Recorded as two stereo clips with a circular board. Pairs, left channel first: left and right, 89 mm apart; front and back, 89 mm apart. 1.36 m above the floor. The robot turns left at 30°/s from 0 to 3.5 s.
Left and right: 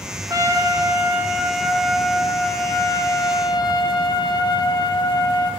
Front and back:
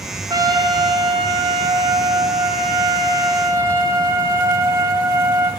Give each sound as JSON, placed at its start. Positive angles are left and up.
{"t": 0.3, "sound": "a trumpet", "azimuth_deg": -140, "distance_m": 0.6}